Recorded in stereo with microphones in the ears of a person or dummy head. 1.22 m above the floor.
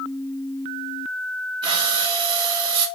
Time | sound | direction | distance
1.6 | breathing | 25° right (ahead or behind) | 1.4 m